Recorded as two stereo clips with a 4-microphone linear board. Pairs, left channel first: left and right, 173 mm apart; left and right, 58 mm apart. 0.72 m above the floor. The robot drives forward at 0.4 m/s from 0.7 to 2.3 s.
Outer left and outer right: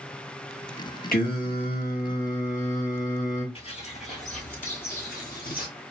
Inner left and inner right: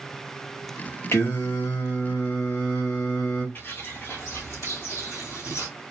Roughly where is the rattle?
No rattle in this recording.